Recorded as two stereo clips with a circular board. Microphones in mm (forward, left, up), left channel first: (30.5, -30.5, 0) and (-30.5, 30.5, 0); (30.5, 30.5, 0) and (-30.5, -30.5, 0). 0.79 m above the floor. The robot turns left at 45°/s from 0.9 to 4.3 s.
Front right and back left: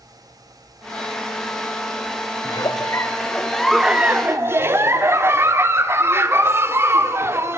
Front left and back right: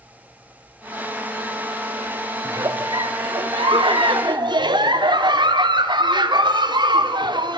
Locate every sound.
2.5 s a giggle: 80° right, 1.1 m; by 7.6 s 165° right, 1.1 m